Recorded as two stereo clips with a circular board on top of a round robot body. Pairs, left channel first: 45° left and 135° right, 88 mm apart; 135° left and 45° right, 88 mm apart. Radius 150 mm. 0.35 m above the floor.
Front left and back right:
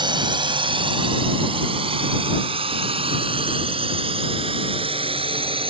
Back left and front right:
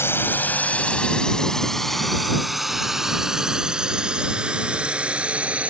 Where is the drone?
165° right; by 5.7 s 120° right.